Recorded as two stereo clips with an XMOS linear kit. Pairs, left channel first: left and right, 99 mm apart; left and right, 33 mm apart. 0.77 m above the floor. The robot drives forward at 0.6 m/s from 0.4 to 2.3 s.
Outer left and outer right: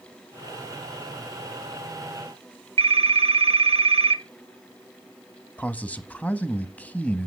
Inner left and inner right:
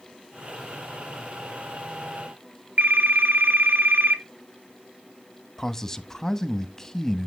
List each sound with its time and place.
2.8 s a phone ringing: 65° right (ahead or behind), 1.1 m
5.6 s a man speaking: 15° left (ahead or behind), 0.7 m